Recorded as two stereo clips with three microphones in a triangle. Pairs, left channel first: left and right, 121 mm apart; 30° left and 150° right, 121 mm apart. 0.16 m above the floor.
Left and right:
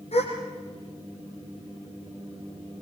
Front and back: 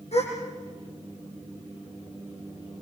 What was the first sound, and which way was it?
A gasp, 60° left.